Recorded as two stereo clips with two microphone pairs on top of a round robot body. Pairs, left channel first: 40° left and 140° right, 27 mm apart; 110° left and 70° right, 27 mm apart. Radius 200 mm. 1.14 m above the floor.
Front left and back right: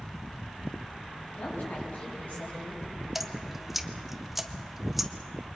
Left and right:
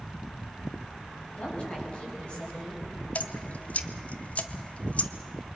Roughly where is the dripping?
Behind left.